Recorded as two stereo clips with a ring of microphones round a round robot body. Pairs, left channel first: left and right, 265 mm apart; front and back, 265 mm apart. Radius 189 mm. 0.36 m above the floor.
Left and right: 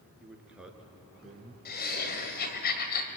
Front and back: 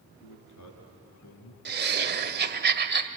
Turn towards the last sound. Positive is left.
turn(degrees=140)